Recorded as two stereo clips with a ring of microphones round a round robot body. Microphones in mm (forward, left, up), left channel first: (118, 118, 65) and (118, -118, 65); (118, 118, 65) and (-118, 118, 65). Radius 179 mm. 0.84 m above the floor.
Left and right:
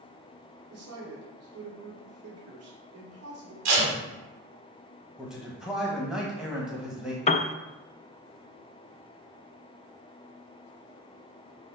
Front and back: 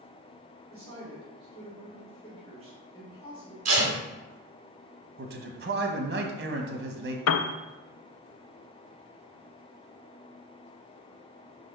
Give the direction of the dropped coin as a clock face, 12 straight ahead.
I don't hear a dropped coin.